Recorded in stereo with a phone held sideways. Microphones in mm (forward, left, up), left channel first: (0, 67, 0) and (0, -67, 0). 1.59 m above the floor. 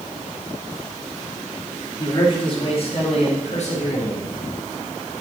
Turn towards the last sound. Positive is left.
turn(degrees=65)  # may be behind; listen again after turning